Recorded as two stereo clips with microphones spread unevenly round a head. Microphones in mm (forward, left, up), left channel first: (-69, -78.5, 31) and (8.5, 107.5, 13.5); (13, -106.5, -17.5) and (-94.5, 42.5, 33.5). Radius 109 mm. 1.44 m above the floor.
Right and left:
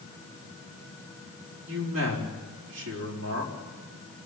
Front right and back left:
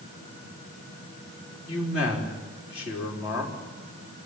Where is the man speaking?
55° left, 4.5 m.